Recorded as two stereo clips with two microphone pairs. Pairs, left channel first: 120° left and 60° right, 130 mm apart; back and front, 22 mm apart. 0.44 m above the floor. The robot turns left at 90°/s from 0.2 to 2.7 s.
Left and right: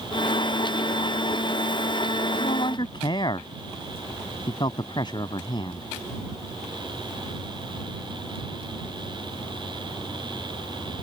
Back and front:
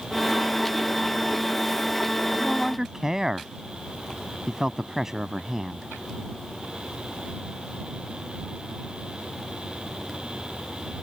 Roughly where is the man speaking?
Left.